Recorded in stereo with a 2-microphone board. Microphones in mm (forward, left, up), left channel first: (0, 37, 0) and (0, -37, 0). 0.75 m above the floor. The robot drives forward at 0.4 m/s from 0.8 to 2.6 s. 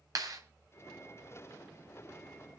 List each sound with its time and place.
0.1 s a clap: 55° right (ahead or behind), 3 m